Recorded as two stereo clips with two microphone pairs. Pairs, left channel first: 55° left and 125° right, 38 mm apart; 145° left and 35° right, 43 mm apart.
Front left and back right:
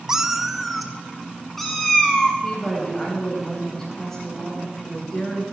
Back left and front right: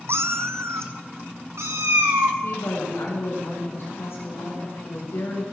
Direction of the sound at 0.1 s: 50° right.